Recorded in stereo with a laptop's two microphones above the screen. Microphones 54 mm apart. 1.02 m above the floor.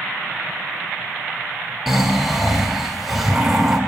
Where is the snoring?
10° right (ahead or behind), 1.4 m.